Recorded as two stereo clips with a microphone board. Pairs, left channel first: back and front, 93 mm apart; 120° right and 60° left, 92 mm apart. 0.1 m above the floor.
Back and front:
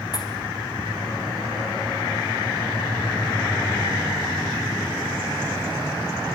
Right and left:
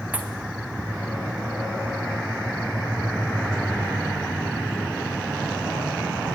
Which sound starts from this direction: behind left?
A pop, at 0.1 s.